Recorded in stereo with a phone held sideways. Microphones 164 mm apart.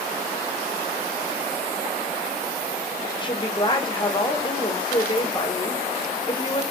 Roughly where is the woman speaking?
Left.